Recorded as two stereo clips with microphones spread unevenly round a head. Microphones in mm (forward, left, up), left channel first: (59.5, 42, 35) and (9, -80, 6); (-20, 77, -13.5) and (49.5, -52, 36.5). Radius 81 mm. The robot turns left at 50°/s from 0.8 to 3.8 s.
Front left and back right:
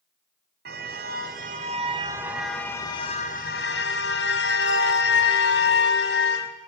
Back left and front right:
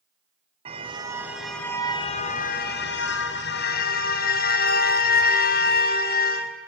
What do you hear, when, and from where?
0.7 s a car horn: 120° right, 2.5 m; by 6.5 s 90° left, 2.5 m